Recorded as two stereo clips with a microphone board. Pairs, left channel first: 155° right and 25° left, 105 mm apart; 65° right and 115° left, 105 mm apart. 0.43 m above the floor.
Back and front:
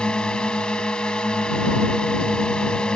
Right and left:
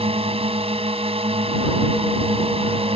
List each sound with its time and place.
0.0 s a drone: 120° left